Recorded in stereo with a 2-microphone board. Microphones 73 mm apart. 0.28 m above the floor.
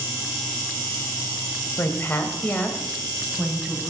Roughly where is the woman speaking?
Left.